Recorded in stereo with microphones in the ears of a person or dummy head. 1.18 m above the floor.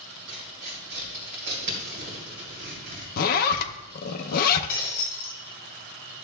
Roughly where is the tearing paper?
Right.